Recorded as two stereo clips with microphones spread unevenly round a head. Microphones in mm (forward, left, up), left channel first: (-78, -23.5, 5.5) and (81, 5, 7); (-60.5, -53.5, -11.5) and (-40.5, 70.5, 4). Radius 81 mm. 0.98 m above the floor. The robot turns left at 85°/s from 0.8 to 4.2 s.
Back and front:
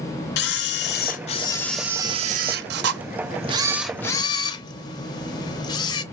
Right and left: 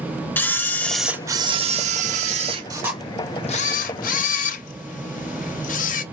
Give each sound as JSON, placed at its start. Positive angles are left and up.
{"t": 0.4, "sound": "a camera shutter", "azimuth_deg": -175, "distance_m": 0.5}